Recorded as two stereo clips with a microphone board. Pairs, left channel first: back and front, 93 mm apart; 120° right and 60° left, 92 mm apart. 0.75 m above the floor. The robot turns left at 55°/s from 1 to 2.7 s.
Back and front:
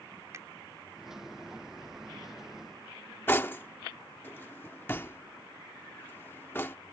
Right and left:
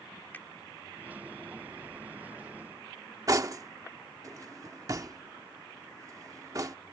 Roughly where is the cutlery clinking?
Behind left.